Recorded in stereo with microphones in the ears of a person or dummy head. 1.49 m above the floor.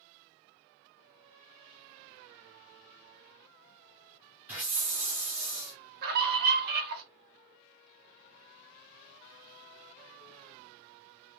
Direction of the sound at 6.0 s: 50° right (ahead or behind).